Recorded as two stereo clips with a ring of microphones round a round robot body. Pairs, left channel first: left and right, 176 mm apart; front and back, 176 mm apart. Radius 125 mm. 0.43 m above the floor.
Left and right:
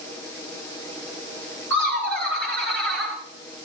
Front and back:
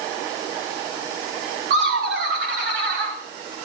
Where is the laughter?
170° left, 6.5 m; by 3.2 s straight behind, 5.5 m.